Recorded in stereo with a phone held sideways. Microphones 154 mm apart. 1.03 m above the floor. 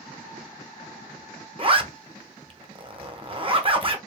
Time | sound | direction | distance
1.6 | a zipper | 35° right (ahead or behind) | 0.7 m